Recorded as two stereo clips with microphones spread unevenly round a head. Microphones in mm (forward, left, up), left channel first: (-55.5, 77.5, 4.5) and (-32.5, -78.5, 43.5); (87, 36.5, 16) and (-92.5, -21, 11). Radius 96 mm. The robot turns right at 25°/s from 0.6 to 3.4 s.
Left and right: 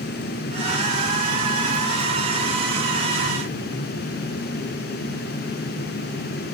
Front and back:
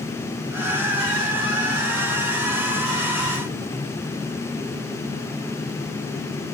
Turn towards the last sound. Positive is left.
No sound to turn to.